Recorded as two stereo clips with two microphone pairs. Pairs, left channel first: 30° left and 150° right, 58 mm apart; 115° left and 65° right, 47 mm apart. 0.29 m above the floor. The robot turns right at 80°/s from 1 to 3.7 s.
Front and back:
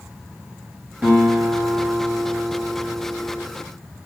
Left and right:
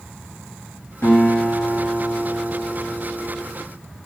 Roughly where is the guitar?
Behind left.